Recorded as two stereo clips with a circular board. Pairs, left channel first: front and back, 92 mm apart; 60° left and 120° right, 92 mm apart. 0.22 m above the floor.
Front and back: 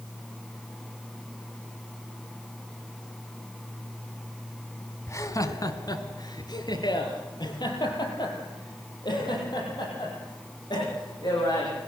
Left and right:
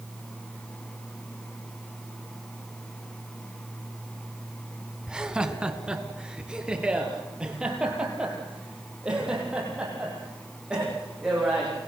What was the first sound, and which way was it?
Laughter, 40° right.